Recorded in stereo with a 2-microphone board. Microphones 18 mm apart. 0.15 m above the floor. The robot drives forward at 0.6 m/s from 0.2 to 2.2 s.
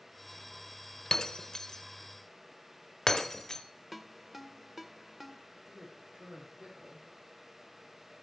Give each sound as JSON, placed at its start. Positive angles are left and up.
{"t": 1.1, "sound": "breaking glass", "side_deg": 40, "distance_m": 0.8}
{"t": 3.9, "sound": "a ringtone", "side_deg": -15, "distance_m": 0.6}
{"t": 5.7, "sound": "a man speaking", "side_deg": -70, "distance_m": 6.0}